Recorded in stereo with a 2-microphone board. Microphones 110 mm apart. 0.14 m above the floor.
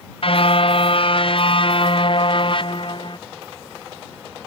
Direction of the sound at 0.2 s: 55° left (ahead or behind).